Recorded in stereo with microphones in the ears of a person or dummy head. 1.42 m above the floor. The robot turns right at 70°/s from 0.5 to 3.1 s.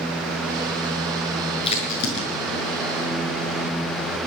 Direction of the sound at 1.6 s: 30° left (ahead or behind).